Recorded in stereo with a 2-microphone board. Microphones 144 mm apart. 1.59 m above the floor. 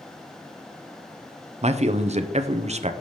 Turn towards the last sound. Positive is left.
turn(degrees=-50)  # may be behind; listen again after turning